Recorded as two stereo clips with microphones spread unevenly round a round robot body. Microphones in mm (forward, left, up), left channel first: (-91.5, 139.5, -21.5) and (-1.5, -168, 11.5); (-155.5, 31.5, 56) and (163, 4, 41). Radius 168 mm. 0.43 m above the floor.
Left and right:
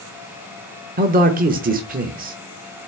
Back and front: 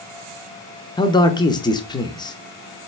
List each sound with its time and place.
1.0 s a man speaking: 115° right, 0.8 m